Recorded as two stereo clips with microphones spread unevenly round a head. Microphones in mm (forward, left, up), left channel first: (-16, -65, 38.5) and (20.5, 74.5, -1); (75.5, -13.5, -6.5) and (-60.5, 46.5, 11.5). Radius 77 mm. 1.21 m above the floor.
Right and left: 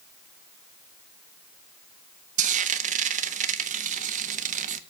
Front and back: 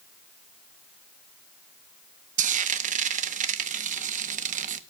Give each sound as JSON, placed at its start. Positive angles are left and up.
{"t": 2.4, "sound": "frying", "azimuth_deg": 120, "distance_m": 1.0}